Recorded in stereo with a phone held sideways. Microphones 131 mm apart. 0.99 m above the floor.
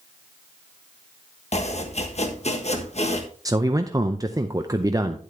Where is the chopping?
55° left (ahead or behind), 1.2 m.